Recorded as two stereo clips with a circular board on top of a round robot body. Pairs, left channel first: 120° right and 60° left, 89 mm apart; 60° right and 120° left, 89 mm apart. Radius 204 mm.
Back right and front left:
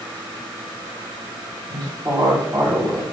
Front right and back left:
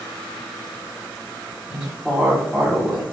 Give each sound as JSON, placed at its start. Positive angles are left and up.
{"t": 1.7, "sound": "a woman speaking", "azimuth_deg": 35, "distance_m": 2.0}